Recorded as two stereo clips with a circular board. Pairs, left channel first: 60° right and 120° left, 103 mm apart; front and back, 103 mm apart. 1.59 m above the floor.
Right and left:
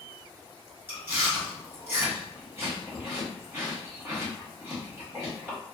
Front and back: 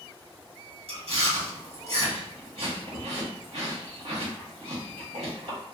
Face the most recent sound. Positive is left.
turn(degrees=-170)